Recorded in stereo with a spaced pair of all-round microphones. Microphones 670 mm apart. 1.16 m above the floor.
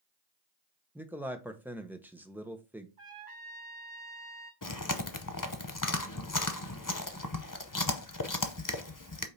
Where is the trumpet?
45° right (ahead or behind), 2 m.